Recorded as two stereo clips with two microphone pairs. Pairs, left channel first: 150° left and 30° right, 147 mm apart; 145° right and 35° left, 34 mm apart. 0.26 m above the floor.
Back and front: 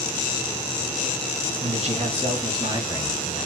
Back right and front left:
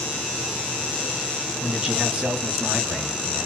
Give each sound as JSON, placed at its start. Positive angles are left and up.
{"t": 1.6, "sound": "a man speaking", "azimuth_deg": -30, "distance_m": 2.5}